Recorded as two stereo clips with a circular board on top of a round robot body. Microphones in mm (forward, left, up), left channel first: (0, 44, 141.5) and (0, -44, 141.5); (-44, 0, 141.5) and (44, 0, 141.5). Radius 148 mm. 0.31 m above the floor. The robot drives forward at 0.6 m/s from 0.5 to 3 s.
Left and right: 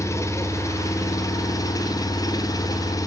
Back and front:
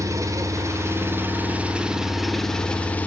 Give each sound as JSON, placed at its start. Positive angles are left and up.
{"t": 0.0, "sound": "an engine running", "azimuth_deg": 40, "distance_m": 1.9}